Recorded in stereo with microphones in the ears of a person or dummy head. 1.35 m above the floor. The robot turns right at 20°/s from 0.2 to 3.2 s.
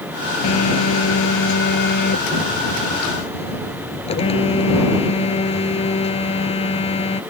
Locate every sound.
0.4 s a phone buzzing: 90° left; by 7.2 s 145° left